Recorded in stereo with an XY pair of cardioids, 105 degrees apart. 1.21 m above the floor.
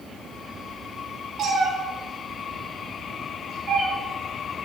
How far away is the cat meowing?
About 5.5 m.